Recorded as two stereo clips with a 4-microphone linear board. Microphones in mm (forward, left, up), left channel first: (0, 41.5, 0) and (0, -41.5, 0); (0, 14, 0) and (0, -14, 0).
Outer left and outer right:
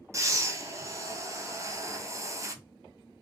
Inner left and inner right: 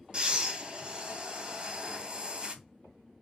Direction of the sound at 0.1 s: 35° right (ahead or behind).